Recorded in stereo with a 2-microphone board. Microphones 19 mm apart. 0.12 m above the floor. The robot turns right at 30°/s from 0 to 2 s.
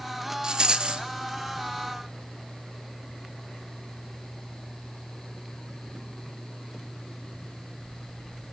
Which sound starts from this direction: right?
A rattle, at 0.4 s.